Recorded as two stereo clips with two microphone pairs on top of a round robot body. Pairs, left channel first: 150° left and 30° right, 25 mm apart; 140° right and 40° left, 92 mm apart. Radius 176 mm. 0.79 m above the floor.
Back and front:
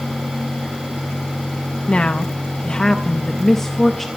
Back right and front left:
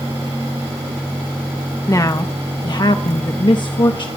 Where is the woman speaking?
175° left, 1.1 m; by 4.1 s 120° right, 1.4 m.